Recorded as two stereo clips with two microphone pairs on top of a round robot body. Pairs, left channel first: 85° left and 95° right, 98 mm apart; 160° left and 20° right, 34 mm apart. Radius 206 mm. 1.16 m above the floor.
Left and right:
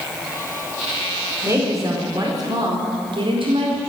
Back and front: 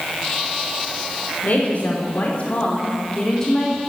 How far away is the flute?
I don't hear a flute.